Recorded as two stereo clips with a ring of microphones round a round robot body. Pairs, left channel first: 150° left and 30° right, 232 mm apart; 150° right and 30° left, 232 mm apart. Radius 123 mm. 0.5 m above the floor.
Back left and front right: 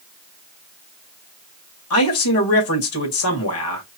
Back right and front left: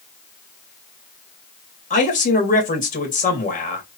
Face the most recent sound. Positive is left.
turn(degrees=155)